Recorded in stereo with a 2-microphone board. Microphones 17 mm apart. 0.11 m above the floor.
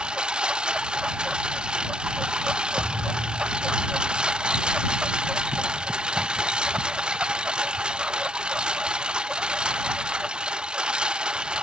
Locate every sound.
0.0 s a lawn mower: 70° right (ahead or behind)
2.8 s a thud: 60° right (ahead or behind)